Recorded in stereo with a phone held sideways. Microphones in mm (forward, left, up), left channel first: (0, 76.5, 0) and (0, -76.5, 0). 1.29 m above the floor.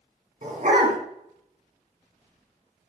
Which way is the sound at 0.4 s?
60° right (ahead or behind).